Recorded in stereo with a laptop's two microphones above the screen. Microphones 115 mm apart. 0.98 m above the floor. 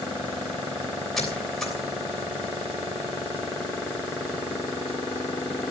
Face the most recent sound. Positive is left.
turn(degrees=0)  # may be behind; listen again after turning